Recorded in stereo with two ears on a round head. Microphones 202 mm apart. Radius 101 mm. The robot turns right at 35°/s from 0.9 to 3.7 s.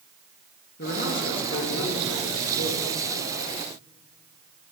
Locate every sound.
0.8 s a man speaking: 50° left, 1.6 m; by 2.9 s 120° left, 1.6 m